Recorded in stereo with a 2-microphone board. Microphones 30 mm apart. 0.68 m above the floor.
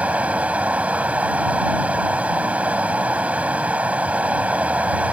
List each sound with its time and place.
0.0 s running water: 50° right (ahead or behind)